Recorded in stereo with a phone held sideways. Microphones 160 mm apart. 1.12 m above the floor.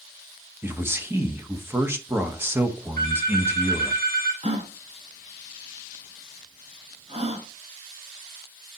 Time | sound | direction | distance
0.6 | a man speaking | 15° right (ahead or behind) | 1.0 m
3.0 | a phone ringing | 65° right (ahead or behind) | 2 m
4.4 | a gasp | 40° right (ahead or behind) | 0.8 m